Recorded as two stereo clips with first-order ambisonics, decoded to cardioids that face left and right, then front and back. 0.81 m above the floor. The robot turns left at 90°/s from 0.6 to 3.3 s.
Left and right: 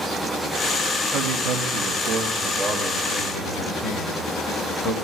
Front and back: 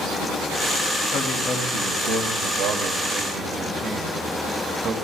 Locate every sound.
1.1 s a man speaking: 40° right, 1.6 m; by 4.9 s 125° left, 1.6 m